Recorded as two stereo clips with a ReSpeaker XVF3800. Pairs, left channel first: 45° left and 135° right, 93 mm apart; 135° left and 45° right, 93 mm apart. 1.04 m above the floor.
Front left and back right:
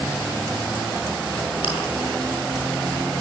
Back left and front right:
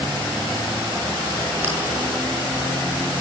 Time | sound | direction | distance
1.6 | chewing | 25° left | 8.5 m